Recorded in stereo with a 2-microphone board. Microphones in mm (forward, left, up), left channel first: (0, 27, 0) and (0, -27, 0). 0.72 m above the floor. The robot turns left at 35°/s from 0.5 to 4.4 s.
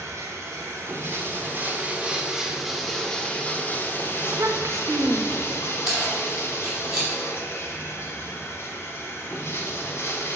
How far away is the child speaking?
About 0.6 m.